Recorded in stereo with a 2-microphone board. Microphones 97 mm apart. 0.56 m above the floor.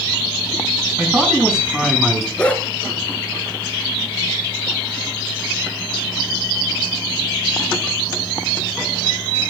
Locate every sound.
1.0 s a man speaking: 10° right (ahead or behind), 5.5 m; by 2.3 s centre (ahead or behind), 5.5 m
2.4 s a dog barking: 10° left (ahead or behind), 2 m